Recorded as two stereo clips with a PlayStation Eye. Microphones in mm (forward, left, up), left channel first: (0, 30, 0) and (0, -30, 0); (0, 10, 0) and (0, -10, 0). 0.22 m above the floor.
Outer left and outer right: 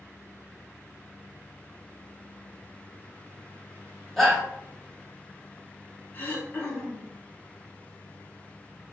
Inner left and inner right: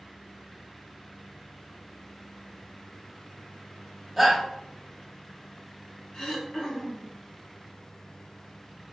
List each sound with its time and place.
4.2 s a shout: 5° left (ahead or behind), 1.6 m
6.1 s throat clearing: 35° left (ahead or behind), 1.1 m